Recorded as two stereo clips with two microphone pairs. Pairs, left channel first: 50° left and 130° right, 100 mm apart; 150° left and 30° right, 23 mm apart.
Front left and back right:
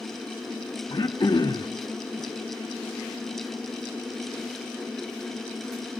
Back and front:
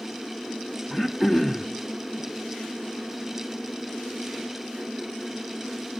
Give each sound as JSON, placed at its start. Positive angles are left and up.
{"t": 0.9, "sound": "throat clearing", "azimuth_deg": 45, "distance_m": 1.4}